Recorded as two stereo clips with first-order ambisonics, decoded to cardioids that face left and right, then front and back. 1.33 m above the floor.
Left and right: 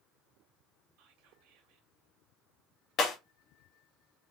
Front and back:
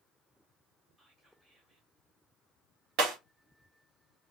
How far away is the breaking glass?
About 1.2 m.